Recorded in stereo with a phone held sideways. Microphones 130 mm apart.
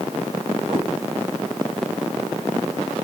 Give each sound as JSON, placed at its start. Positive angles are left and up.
{"t": 0.7, "sound": "a cat meowing", "side_deg": -40, "distance_m": 2.5}